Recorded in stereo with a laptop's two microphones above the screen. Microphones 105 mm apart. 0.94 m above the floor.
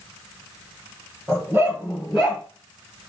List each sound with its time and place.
1.3 s a dog barking: 30° right (ahead or behind), 1.6 m; by 2.4 s centre (ahead or behind), 1.9 m